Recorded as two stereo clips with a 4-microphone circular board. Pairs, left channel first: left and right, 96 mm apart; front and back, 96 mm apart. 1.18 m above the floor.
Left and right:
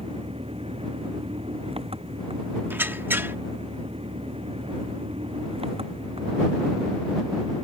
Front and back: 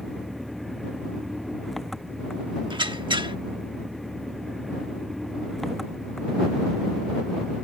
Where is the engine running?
90° right.